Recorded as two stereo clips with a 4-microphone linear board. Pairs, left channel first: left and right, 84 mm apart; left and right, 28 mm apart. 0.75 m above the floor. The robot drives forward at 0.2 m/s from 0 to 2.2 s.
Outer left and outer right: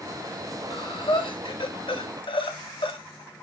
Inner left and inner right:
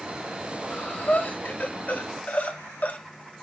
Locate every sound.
0.7 s breathing: 65° left (ahead or behind), 0.6 m; by 3.0 s 80° left, 0.5 m